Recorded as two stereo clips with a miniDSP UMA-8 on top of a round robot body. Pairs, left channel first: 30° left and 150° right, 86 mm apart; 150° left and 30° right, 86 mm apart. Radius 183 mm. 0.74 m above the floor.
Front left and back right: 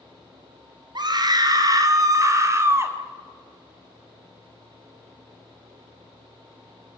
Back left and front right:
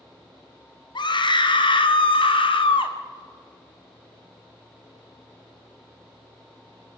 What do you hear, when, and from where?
0.9 s a scream: 175° left, 2 m; by 3.0 s 150° left, 2.5 m